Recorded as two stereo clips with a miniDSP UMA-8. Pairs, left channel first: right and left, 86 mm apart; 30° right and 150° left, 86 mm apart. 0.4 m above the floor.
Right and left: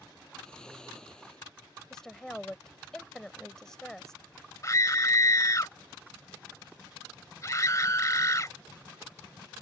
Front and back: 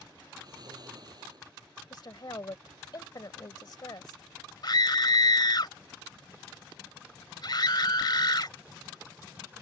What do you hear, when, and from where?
0.4 s snoring: 170° right
1.9 s a woman speaking: 10° right
4.6 s a scream: 50° right